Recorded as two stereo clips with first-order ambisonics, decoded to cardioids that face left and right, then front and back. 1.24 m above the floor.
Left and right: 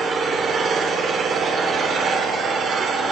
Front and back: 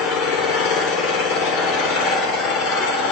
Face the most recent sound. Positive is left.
turn(degrees=-25)